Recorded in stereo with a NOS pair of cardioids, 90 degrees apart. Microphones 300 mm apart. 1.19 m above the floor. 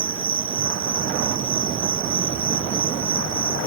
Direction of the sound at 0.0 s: 45° right.